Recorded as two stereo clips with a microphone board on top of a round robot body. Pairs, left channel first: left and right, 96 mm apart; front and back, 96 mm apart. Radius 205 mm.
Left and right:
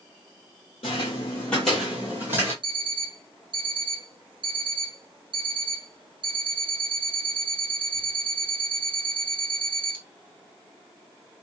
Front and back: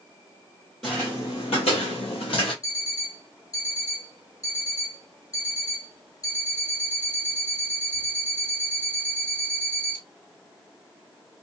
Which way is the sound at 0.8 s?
90° left.